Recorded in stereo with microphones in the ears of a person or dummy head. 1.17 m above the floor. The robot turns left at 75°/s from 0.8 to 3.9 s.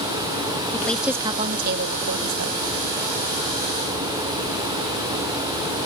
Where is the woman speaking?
10° left; by 2.6 s 120° right.